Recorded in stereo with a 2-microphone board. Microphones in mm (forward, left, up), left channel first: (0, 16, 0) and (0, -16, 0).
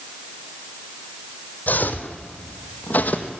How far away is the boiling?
I don't hear boiling.